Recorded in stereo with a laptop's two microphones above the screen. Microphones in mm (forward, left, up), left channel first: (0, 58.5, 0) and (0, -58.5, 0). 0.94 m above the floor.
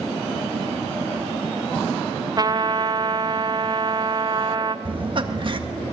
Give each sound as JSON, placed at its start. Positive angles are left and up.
{"t": 2.4, "sound": "a trumpet", "side_deg": -35, "distance_m": 0.7}
{"t": 4.8, "sound": "laughter", "side_deg": -45, "distance_m": 1.6}